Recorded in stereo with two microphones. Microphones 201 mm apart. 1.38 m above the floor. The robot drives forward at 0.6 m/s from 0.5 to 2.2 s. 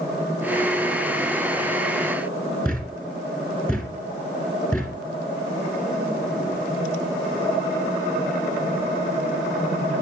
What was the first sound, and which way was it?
A thud, 5° left (ahead or behind).